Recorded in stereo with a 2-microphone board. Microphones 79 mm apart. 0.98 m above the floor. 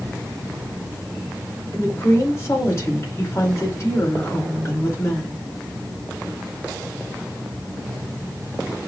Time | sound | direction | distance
1.7 | a woman speaking | 40° left (ahead or behind) | 2.5 m